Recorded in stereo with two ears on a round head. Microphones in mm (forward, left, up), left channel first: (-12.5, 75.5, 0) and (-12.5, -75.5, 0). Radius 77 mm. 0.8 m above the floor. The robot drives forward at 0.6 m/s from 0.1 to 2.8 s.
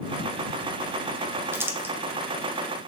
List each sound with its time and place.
1.5 s crumpling: 15° right (ahead or behind), 0.6 m; by 1.9 s 10° right (ahead or behind), 0.7 m